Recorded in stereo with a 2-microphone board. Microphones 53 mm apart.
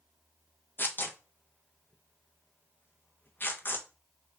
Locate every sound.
0.8 s tearing paper: 40° left (ahead or behind), 0.5 m